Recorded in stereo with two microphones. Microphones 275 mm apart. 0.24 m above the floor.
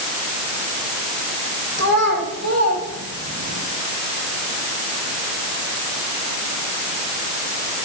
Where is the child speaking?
75° right (ahead or behind), 7 m; by 3.6 s 65° right (ahead or behind), 6.5 m.